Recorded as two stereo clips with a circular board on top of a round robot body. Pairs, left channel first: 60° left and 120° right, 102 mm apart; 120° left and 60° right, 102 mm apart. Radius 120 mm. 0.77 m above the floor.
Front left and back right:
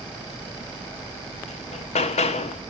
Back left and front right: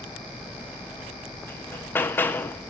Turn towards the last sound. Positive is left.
turn(degrees=50)